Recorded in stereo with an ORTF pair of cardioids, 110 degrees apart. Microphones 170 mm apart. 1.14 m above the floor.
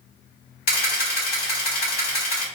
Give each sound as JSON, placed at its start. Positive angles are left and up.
{"t": 0.7, "sound": "a camera shutter", "azimuth_deg": 60, "distance_m": 1.7}